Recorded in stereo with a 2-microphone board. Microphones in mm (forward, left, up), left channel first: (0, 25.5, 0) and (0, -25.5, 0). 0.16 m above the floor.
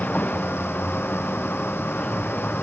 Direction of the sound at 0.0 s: 30° left (ahead or behind).